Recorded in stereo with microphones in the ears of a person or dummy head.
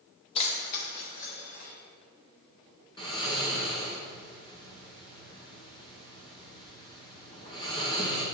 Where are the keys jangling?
35° left (ahead or behind), 0.9 m; by 1.7 s 70° left (ahead or behind), 1.9 m.